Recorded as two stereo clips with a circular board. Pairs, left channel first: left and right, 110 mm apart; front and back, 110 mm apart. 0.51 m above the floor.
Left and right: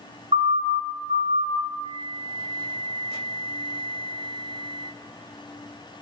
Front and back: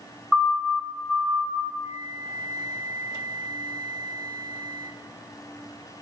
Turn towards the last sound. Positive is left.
turn(degrees=130)